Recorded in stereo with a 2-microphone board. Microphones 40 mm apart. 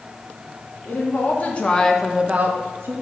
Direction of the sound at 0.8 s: 50° left (ahead or behind).